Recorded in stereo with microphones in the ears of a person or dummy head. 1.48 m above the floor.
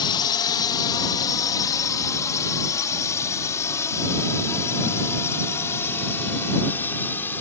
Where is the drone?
30° left (ahead or behind); by 7.4 s 15° left (ahead or behind).